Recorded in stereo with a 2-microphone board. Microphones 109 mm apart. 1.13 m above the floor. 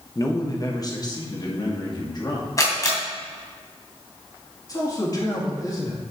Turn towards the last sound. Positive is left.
turn(degrees=35)  # may be behind; listen again after turning